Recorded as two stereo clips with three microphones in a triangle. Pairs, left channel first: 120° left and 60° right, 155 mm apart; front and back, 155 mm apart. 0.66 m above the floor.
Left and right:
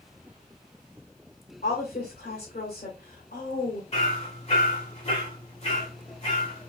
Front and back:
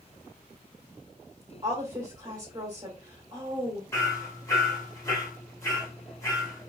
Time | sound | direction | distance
1.6 | a woman speaking | 120° left | 1.8 m
3.9 | hammering | 70° left | 1.7 m